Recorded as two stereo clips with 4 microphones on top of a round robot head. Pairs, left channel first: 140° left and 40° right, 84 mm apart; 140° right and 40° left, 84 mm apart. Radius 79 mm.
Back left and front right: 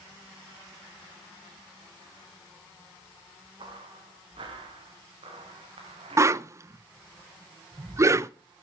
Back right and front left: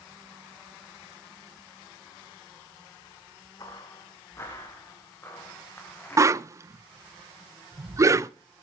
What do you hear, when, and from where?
3.6 s footsteps: 85° right, 3 m; by 6.5 s 65° right, 4.5 m
6.2 s a whoosh: straight ahead, 0.6 m